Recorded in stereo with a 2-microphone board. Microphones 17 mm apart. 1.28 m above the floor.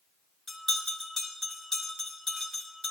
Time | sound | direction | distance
0.5 | a bell | 25° left (ahead or behind) | 2.5 m